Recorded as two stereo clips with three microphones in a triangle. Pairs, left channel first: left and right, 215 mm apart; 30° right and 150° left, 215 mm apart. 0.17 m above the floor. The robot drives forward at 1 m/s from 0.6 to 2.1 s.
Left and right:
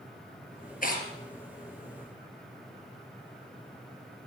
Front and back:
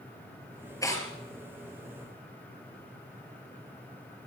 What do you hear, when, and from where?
0.8 s tearing paper: 45° left, 3.5 m